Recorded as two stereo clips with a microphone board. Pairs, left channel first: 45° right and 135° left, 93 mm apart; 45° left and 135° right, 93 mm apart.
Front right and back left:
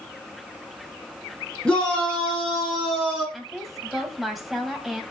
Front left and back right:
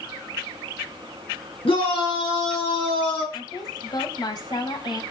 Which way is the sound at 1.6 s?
35° left.